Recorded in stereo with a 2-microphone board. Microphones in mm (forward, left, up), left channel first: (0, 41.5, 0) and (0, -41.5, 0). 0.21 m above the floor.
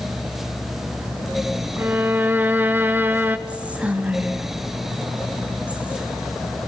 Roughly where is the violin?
Right.